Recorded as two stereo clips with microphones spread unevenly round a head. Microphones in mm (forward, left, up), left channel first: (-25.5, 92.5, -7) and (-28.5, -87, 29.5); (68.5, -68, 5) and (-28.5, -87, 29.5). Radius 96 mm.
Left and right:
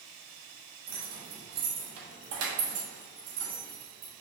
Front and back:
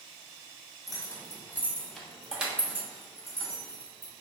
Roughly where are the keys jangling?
Ahead right.